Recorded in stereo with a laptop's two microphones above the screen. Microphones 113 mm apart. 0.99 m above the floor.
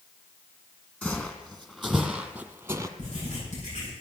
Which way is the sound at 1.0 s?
10° left (ahead or behind).